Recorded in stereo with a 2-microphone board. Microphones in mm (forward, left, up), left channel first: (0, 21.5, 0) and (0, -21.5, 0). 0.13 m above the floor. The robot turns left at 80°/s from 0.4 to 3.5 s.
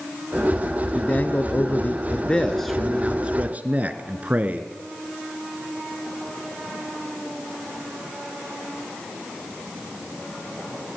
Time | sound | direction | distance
0.9 | a man speaking | 140° left | 1.4 m